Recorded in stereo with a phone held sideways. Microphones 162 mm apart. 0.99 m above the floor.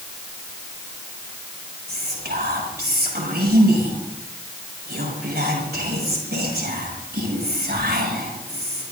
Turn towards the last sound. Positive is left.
turn(degrees=-75)  # may be behind; listen again after turning